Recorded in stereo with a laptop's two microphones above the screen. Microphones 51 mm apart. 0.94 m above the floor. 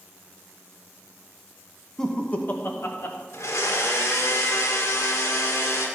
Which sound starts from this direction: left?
A blender, at 3.3 s.